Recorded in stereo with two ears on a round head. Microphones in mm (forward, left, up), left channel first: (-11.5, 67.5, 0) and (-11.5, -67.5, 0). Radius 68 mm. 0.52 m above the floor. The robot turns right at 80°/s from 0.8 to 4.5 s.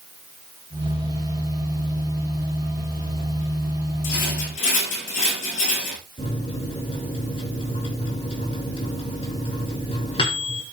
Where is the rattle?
80° left, 8 m; by 6.0 s 115° left, 8 m.